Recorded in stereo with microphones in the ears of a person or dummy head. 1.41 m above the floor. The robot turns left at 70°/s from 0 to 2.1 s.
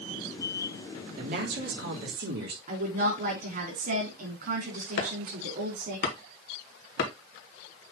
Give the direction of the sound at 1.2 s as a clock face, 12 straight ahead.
2 o'clock.